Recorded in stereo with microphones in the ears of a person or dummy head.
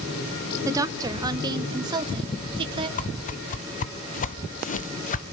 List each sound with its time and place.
0.7 s a woman speaking: 15° right (ahead or behind), 1.3 m; by 2.9 s 25° right (ahead or behind), 2.5 m
3.0 s a whoosh: 40° left (ahead or behind), 0.8 m